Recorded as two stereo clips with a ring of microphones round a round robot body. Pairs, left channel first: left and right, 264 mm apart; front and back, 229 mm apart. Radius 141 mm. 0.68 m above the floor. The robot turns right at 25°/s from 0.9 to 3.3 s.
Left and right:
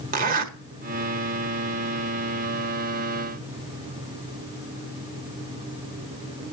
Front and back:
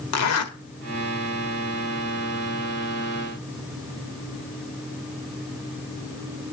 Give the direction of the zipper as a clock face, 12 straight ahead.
1 o'clock.